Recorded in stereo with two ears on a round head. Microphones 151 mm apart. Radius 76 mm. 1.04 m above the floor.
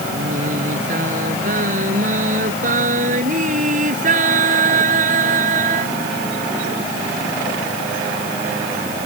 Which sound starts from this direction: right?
Singing, at 0.1 s.